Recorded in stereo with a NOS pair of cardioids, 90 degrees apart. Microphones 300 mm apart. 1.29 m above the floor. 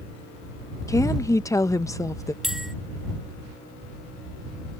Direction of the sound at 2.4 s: Straight ahead.